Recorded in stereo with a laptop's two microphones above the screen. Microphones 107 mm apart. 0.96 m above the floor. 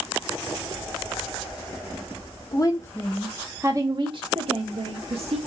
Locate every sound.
2.5 s a woman speaking: 35° left (ahead or behind), 1.0 m; by 5.4 s 70° right (ahead or behind), 1.7 m